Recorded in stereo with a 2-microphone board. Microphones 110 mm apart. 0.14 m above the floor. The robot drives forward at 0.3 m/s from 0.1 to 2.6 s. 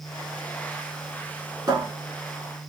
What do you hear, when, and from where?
1.7 s a cupboard door: 40° right (ahead or behind), 0.9 m